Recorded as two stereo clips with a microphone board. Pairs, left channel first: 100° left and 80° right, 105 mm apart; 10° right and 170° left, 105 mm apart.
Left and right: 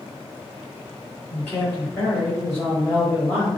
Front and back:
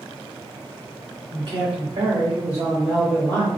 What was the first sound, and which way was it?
A man speaking, 160° left.